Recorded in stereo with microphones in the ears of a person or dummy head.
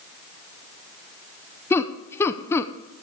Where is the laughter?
15° left (ahead or behind), 0.6 m.